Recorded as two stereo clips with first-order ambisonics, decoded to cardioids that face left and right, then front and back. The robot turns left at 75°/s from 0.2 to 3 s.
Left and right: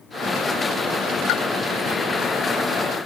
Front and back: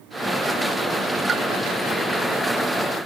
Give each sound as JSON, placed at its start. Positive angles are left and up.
{"t": 1.3, "sound": "a pop", "azimuth_deg": 115, "distance_m": 2.0}